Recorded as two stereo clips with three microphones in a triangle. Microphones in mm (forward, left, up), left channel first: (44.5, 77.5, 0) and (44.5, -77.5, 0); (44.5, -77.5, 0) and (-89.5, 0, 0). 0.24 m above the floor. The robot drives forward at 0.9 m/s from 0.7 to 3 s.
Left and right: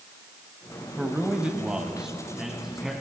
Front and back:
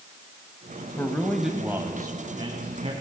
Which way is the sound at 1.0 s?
25° right.